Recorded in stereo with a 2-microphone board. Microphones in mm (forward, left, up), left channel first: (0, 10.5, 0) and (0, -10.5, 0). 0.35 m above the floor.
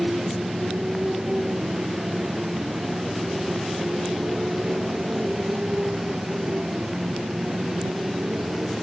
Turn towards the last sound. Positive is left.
turn(degrees=-60)  # may be behind; listen again after turning